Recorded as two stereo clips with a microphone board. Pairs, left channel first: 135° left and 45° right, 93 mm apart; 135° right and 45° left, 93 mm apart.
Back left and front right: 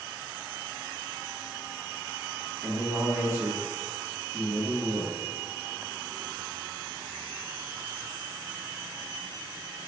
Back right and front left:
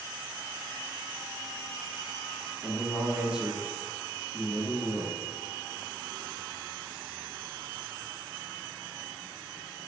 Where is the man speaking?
25° right, 1.1 m.